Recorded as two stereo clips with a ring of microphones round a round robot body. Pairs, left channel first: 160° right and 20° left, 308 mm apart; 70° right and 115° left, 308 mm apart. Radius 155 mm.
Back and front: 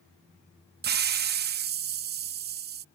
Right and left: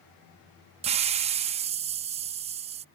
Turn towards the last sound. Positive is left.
turn(degrees=55)